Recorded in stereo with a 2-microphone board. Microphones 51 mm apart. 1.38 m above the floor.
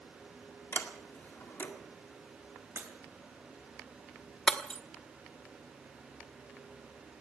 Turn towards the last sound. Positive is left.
turn(degrees=15)  # may be behind; listen again after turning